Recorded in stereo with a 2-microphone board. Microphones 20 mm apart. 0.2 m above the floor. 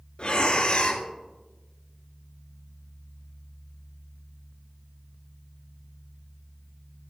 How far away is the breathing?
About 1.4 m.